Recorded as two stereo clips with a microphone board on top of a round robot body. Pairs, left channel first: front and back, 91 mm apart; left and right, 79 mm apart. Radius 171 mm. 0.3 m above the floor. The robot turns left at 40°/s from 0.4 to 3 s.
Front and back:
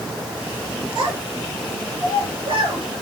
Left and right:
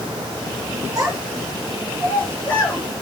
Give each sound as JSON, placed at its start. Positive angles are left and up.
{"t": 0.9, "sound": "a child speaking", "azimuth_deg": -135, "distance_m": 6.0}